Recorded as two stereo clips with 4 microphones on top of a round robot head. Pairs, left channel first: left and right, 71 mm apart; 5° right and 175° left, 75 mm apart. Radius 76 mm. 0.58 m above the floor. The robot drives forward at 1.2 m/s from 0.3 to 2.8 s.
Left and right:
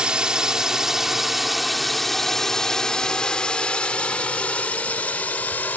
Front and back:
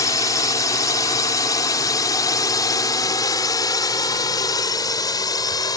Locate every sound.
0.0 s a drone: 15° right; by 5.8 s 20° left